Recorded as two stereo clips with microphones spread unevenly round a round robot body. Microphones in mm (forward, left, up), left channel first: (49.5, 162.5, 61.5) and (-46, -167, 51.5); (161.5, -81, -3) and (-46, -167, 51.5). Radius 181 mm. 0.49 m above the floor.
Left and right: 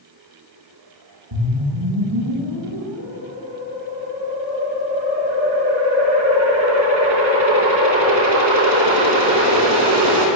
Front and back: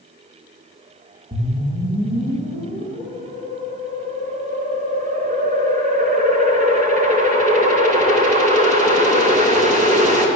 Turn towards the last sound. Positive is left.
turn(degrees=-105)